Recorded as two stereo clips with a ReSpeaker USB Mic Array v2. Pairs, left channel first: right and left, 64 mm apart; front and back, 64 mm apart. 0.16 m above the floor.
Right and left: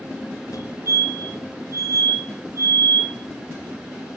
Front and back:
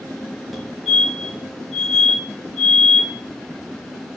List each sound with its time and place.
0.5 s a fire alarm: 90° right, 4.5 m